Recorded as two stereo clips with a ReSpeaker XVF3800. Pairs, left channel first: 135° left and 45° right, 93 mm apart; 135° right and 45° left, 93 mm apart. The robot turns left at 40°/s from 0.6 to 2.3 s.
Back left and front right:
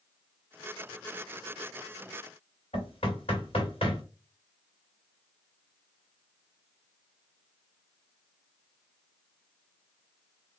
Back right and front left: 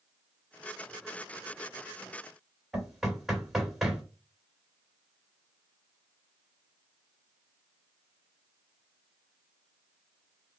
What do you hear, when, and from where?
2.7 s knocking: 130° left, 1.7 m